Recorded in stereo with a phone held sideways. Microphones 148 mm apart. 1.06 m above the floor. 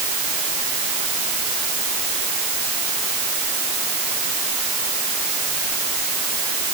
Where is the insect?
I don't hear an insect.